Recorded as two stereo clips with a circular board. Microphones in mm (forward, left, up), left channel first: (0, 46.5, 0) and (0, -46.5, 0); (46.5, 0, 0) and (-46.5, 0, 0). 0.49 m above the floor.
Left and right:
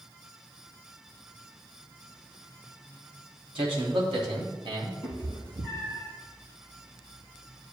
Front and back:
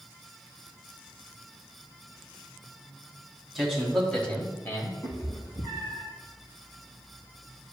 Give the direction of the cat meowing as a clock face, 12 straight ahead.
2 o'clock.